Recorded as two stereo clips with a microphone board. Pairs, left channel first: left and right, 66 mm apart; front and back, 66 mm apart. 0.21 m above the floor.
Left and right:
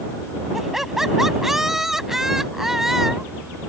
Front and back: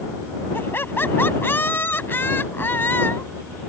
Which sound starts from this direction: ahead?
Laughter, at 0.5 s.